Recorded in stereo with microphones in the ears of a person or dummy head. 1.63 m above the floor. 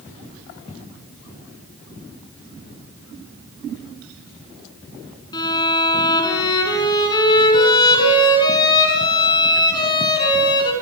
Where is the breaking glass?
No breaking glass in this recording.